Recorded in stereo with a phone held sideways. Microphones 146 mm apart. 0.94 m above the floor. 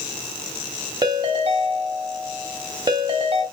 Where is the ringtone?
35° right (ahead or behind), 3 m.